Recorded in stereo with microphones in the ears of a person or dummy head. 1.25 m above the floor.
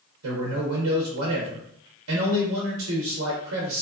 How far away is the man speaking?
About 0.7 m.